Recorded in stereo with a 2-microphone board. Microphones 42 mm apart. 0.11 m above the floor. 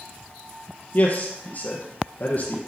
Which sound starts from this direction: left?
A man speaking, at 0.9 s.